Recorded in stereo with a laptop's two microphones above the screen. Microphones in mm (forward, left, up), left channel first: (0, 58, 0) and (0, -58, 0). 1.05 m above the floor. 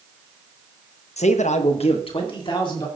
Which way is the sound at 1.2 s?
70° left (ahead or behind).